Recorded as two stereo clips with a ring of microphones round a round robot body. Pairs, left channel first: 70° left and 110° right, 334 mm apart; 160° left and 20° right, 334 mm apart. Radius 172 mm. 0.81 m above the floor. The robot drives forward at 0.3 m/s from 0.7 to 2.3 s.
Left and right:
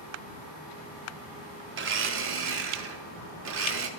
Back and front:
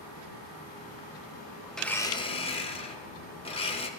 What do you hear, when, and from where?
1.7 s a blender: 115° right, 0.5 m; by 3.9 s 140° right, 0.6 m